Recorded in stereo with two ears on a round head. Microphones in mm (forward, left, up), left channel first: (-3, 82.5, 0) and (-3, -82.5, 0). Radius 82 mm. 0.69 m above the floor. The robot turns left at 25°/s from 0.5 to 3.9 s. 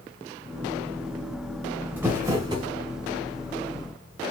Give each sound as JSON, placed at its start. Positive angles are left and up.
{"t": 2.0, "sound": "crumpling", "side_deg": -10, "distance_m": 1.8}